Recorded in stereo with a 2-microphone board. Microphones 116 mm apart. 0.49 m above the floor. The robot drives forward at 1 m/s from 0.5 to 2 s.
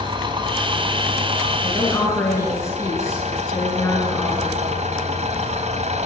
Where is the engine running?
40° right (ahead or behind), 3 m; by 6.1 s 65° right (ahead or behind), 2 m.